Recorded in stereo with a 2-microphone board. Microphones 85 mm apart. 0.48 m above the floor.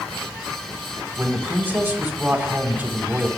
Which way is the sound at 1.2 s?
20° right (ahead or behind).